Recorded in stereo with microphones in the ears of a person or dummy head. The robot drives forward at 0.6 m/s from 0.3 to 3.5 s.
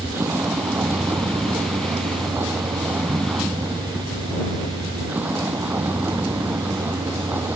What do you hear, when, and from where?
0.0 s a vehicle: 10° right (ahead or behind)